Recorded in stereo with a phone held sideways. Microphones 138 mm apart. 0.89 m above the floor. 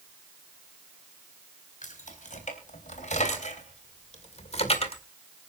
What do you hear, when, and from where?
1.8 s keys jangling: 70° left (ahead or behind), 4 m; by 5.0 s 45° left (ahead or behind), 1.8 m